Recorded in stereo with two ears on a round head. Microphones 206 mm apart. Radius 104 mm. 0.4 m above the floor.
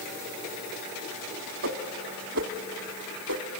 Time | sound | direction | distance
1.6 | a whoosh | 50° right (ahead or behind) | 1.2 m